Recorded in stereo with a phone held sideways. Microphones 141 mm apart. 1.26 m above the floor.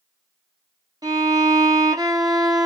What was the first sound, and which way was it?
A violin, 25° right (ahead or behind).